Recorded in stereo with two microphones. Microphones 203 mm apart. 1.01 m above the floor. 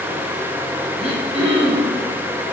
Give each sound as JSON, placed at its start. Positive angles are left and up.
{"t": 1.0, "sound": "throat clearing", "side_deg": -30, "distance_m": 1.1}